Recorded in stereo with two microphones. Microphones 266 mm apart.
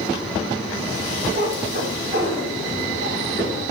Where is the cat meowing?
40° right (ahead or behind), 1.8 m; by 3.6 s 50° right (ahead or behind), 3 m.